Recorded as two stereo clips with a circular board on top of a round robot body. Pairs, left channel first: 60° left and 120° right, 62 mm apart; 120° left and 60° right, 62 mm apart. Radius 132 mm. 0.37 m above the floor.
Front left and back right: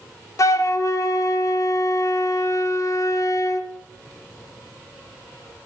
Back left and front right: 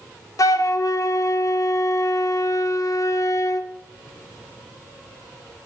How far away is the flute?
About 0.5 m.